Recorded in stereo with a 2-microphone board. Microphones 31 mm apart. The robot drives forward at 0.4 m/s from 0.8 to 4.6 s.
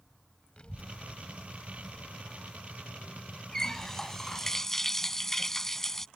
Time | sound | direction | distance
0.6 | a child speaking | 35° left (ahead or behind) | ?
3.5 | a running tap | 15° left (ahead or behind) | ?